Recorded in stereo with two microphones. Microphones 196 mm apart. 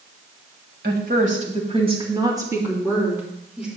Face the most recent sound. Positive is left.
turn(degrees=-5)  # may be behind; listen again after turning